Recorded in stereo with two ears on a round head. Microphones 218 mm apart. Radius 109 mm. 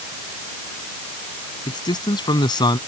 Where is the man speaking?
20° left (ahead or behind).